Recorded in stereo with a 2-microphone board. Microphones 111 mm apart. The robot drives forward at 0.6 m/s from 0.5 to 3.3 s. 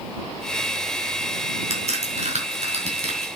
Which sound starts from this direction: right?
A crack, at 1.7 s.